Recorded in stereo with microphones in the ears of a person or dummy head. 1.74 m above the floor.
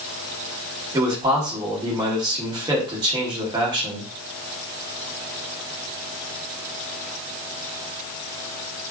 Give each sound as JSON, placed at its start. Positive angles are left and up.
{"t": 0.9, "sound": "a man speaking", "side_deg": -20, "distance_m": 0.9}